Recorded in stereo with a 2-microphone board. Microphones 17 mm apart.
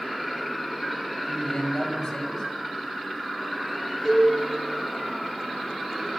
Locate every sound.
1.2 s a man speaking: 50° left (ahead or behind), 6.5 m
4.0 s a cowbell: 5° right (ahead or behind), 6.5 m